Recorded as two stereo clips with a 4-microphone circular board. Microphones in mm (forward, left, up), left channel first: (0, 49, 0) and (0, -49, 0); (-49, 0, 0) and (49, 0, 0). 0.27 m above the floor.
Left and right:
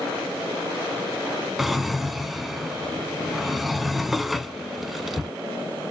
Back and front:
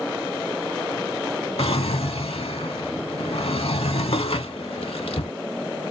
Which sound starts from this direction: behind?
A drawer, at 1.6 s.